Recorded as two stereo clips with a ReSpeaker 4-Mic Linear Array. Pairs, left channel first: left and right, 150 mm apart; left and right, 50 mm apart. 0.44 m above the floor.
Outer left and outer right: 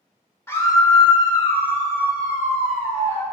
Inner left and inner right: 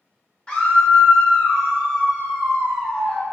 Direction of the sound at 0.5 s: 15° left (ahead or behind).